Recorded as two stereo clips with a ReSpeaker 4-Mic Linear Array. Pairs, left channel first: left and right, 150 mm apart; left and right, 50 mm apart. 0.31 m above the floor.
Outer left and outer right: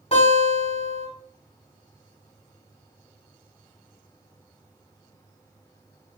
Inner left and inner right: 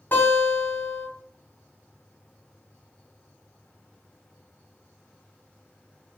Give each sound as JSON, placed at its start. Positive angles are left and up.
{"t": 0.1, "sound": "a guitar", "side_deg": 50, "distance_m": 2.0}